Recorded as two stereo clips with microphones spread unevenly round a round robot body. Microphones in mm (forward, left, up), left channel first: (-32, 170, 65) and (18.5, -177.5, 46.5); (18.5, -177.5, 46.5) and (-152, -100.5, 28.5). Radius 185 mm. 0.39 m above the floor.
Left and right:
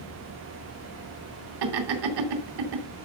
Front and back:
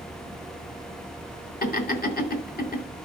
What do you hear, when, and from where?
1.6 s laughter: 65° right, 3 m